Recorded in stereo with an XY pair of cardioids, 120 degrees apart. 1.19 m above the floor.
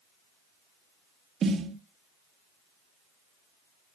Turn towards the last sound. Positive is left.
turn(degrees=-45)